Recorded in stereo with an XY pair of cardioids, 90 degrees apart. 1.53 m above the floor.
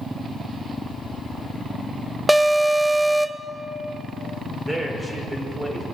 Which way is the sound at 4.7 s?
20° right.